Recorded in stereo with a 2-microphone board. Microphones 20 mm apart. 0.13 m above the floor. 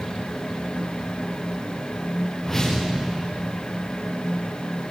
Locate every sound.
2.4 s a whoosh: 15° left (ahead or behind), 5.5 m